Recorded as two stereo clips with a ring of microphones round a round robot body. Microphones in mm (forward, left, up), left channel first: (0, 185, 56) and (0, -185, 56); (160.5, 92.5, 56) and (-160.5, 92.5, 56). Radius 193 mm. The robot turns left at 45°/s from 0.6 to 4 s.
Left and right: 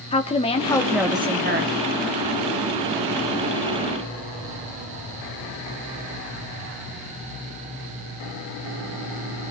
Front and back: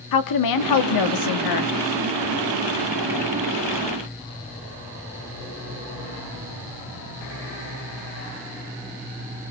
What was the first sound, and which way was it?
A woman speaking, 15° left.